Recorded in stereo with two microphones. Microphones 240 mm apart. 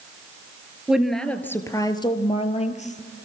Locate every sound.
0.9 s a woman speaking: 5° right (ahead or behind), 1.7 m; by 3.2 s 35° left (ahead or behind), 2.5 m